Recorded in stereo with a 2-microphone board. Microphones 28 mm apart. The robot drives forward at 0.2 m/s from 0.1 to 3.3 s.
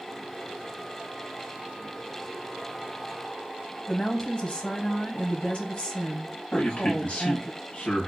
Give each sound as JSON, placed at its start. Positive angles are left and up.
{"t": 3.9, "sound": "a woman speaking", "side_deg": 40, "distance_m": 0.9}
{"t": 6.5, "sound": "a man speaking", "side_deg": 60, "distance_m": 1.9}